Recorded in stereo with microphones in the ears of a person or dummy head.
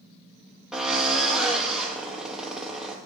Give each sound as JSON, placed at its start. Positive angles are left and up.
{"t": 0.7, "sound": "a drill", "side_deg": 0, "distance_m": 2.0}